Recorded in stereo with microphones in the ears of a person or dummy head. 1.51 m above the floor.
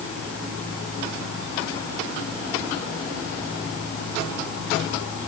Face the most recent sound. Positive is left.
No sound to turn to.